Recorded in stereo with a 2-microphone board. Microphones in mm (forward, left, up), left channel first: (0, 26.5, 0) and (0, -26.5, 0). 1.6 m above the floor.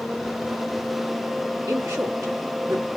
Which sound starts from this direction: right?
A woman speaking, at 1.7 s.